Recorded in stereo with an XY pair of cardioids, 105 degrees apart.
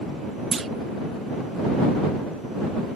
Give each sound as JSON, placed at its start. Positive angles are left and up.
{"t": 0.5, "sound": "a clunk", "azimuth_deg": -35}